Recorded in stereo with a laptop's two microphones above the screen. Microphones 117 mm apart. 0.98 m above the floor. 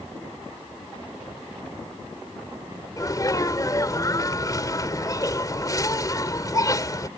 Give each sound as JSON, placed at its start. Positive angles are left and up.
{"t": 3.0, "sound": "a sneeze", "side_deg": 30}